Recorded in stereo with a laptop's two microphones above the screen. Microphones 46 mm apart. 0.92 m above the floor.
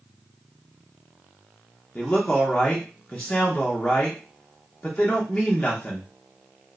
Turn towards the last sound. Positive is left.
turn(degrees=20)  # may be behind; listen again after turning